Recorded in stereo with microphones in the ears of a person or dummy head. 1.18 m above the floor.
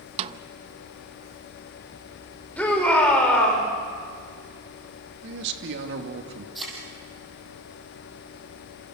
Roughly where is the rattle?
I don't hear a rattle.